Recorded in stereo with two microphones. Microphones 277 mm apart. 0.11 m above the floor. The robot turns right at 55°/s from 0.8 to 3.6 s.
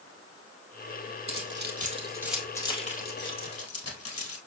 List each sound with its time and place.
1.3 s keys jangling: 50° right (ahead or behind), 1.9 m; by 4.4 s 55° left (ahead or behind), 1.9 m